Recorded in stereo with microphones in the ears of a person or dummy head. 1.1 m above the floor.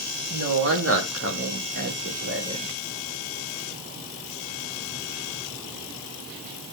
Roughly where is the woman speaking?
Right.